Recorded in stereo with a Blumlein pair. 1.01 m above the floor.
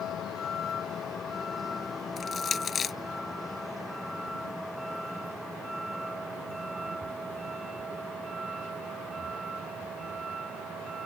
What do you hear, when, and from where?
0.0 s a vehicle: 25° left; by 11.1 s 20° right
2.2 s crushing: 20° left